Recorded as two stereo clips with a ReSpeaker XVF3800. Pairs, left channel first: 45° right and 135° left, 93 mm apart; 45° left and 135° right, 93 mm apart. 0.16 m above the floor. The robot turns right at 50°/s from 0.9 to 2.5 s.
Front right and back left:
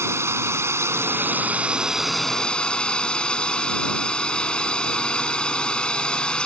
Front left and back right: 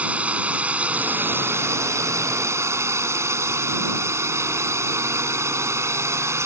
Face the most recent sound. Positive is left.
turn(degrees=-115)